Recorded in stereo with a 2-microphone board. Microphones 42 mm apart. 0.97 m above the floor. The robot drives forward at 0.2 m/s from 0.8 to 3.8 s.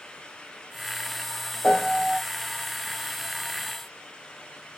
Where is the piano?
45° left (ahead or behind), 1.8 m.